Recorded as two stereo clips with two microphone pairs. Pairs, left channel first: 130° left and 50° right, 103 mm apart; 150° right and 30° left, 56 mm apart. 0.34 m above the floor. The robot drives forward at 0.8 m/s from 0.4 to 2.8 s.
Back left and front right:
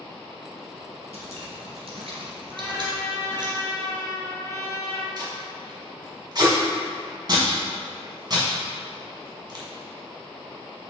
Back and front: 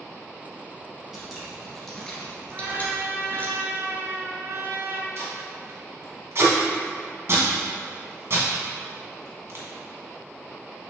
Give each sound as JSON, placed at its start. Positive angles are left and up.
{"t": 1.1, "sound": "dripping", "azimuth_deg": -50, "distance_m": 2.0}
{"t": 2.5, "sound": "a trumpet", "azimuth_deg": 60, "distance_m": 1.5}
{"t": 5.2, "sound": "tape being pulled", "azimuth_deg": -5, "distance_m": 1.9}